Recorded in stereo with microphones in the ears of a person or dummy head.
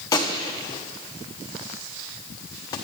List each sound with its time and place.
0.1 s a gunshot: 15° left (ahead or behind), 1.0 m